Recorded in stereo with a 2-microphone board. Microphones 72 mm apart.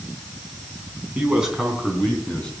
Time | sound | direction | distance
1.1 | a man speaking | 15° right (ahead or behind) | 3.5 m